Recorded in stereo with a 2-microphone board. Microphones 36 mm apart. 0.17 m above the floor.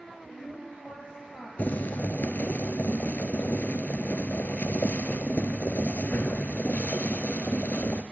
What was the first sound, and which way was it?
A woman speaking, 35° left (ahead or behind).